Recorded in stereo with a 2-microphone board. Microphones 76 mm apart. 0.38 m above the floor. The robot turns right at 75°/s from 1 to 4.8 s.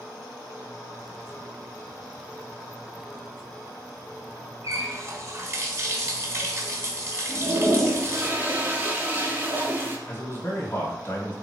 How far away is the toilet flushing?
About 0.7 m.